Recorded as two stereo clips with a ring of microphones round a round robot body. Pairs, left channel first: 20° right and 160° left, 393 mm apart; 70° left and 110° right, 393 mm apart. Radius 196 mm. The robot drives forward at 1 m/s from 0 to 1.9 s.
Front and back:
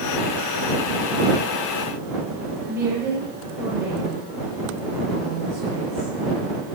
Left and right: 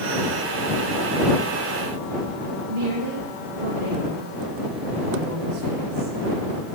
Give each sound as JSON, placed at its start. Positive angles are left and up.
{"t": 2.7, "sound": "a woman speaking", "azimuth_deg": -120, "distance_m": 8.0}